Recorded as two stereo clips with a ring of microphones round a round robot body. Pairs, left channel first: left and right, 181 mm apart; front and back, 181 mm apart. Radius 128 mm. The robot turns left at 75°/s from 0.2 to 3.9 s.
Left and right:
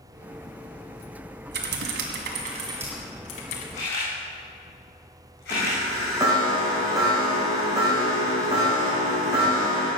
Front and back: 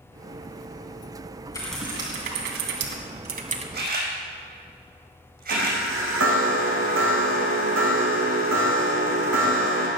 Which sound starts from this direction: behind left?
A camera shutter, at 3.7 s.